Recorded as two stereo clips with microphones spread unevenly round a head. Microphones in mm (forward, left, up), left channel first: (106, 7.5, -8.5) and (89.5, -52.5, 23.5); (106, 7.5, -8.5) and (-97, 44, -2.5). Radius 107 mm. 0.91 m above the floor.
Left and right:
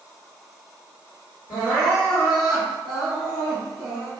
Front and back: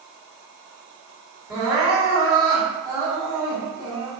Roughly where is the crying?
Left.